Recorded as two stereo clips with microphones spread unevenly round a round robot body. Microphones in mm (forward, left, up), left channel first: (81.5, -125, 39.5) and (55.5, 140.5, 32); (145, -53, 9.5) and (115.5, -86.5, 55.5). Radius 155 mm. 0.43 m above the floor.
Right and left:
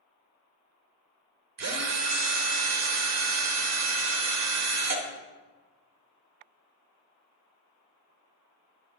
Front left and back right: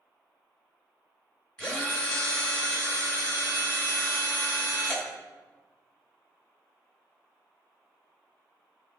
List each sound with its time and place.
1.6 s a drill: 85° left, 1.0 m